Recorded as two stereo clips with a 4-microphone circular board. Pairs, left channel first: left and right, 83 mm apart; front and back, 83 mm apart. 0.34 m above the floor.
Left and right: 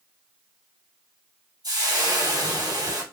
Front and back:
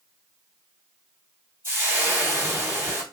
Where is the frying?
120° right, 2.5 m.